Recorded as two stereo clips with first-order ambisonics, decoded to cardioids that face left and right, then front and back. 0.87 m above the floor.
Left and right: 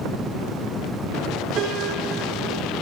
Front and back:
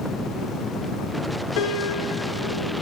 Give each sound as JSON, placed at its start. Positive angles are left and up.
{"t": 1.6, "sound": "a piano", "azimuth_deg": -30, "distance_m": 4.5}